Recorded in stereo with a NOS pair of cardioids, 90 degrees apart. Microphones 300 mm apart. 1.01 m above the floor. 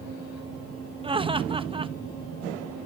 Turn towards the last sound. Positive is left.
turn(degrees=-20)